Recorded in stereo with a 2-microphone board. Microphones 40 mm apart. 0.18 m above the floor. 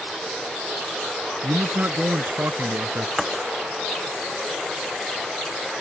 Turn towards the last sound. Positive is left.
turn(degrees=0)  # may be behind; listen again after turning